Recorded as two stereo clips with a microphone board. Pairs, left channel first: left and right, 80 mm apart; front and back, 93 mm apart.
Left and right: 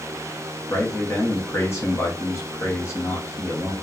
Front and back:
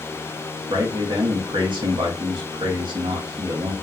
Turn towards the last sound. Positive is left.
turn(degrees=145)